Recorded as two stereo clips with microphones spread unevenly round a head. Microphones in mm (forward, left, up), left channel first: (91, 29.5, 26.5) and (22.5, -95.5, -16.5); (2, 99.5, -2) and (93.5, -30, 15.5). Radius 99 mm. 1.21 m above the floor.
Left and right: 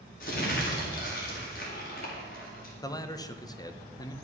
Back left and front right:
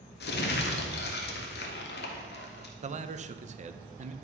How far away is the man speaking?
About 1.1 m.